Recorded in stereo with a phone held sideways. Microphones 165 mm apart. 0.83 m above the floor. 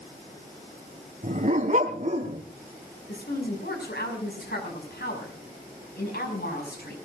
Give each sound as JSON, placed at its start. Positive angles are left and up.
{"t": 1.2, "sound": "a dog barking", "side_deg": -50, "distance_m": 2.0}
{"t": 3.1, "sound": "a woman speaking", "side_deg": 80, "distance_m": 6.0}